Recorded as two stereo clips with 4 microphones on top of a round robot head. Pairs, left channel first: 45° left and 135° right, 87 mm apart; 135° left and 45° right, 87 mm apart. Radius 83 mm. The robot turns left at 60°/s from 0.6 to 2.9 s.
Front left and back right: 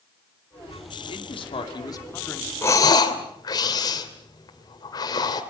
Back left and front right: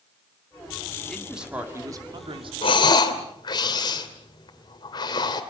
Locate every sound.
1.1 s a man speaking: 55° left, 2.5 m; by 2.5 s 30° right, 2.5 m
2.6 s breathing: 110° left, 2.5 m; by 5.4 s 95° left, 2.5 m